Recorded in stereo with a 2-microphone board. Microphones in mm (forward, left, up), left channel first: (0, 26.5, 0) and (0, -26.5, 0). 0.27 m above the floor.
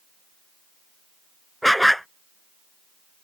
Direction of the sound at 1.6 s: 5° left (ahead or behind).